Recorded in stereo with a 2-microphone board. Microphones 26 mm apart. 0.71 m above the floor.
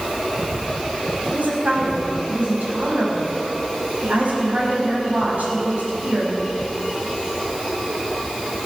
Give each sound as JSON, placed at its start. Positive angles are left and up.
{"t": 1.3, "sound": "a woman speaking", "side_deg": -80, "distance_m": 5.0}